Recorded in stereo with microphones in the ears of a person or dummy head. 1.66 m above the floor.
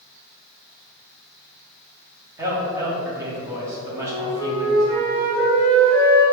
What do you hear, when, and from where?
2.4 s a man speaking: 15° right (ahead or behind), 1.0 m
3.9 s a flute: 80° right, 2.0 m